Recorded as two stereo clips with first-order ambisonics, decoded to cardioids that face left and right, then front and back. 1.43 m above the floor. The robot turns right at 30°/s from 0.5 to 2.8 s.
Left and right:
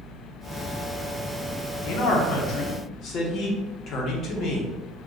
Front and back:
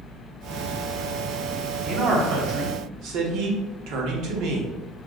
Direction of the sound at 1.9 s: 115° left.